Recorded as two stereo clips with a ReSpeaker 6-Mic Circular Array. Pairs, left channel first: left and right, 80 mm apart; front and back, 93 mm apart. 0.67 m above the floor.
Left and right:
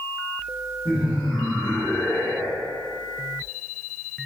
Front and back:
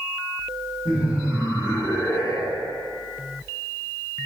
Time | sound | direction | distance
0.8 | laughter | 15° left | 1.2 m